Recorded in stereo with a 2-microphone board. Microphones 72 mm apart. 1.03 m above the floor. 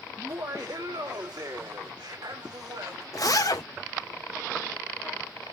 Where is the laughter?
45° right (ahead or behind), 1.4 m; by 3.0 s 75° right (ahead or behind), 3.5 m.